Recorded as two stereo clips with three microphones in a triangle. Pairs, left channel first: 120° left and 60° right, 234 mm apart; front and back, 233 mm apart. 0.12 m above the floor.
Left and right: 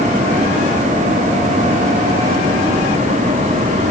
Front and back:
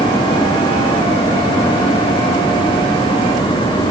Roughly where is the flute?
I don't hear a flute.